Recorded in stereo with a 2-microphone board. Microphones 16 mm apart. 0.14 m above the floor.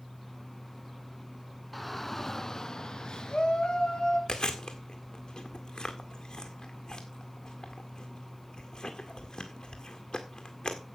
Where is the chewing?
60° left (ahead or behind), 1.8 m.